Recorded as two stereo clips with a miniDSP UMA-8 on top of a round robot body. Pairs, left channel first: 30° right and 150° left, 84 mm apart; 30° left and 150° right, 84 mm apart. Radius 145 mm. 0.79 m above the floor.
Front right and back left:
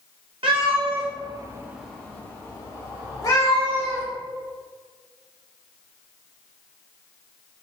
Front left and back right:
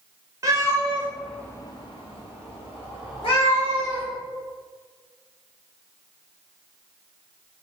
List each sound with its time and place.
0.4 s a cat meowing: 155° left, 1.1 m; by 4.0 s 15° left, 2.5 m